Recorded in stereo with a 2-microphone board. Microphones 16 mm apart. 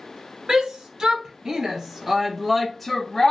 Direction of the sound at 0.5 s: 60° right (ahead or behind).